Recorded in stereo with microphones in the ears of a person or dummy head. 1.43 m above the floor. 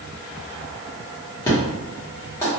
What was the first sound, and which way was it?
An explosion, 15° left (ahead or behind).